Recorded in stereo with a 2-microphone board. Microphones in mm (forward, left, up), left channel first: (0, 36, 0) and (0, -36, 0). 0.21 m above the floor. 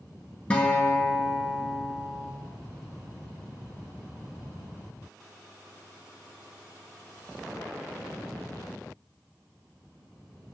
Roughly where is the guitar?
Centre.